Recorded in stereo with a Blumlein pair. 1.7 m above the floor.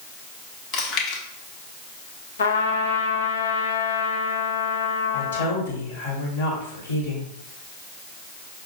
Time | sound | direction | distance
0.7 | chewing | 40° left | 1.2 m
2.4 | a trumpet | 65° left | 0.6 m
5.1 | a woman speaking | 65° left | 1.8 m